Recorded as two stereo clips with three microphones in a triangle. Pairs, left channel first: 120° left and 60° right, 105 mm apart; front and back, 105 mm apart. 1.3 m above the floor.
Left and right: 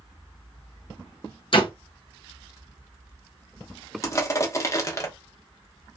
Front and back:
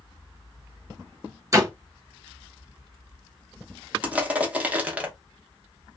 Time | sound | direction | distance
1.5 | a door slam | 130° left | 0.7 m
4.0 | crushing | 120° left | 0.7 m